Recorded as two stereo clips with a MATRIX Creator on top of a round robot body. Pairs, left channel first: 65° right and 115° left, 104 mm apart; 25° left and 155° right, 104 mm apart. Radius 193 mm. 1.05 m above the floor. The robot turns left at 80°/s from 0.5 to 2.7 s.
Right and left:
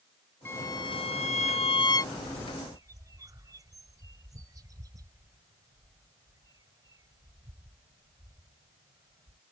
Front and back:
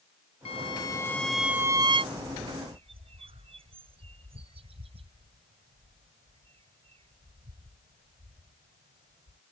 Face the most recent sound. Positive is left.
turn(degrees=170)